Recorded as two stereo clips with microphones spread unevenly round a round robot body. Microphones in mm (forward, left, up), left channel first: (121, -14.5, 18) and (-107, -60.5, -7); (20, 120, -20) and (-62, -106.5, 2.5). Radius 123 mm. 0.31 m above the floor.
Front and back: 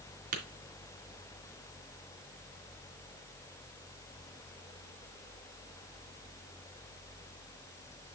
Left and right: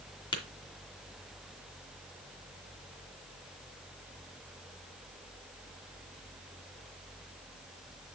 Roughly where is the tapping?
Behind left.